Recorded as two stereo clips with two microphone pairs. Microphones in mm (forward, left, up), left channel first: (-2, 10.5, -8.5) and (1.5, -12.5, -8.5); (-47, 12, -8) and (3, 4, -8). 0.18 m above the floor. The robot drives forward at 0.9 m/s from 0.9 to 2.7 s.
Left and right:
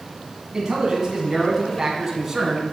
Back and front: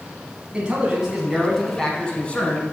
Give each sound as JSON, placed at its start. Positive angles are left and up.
{"t": 0.5, "sound": "a man speaking", "azimuth_deg": -55, "distance_m": 1.6}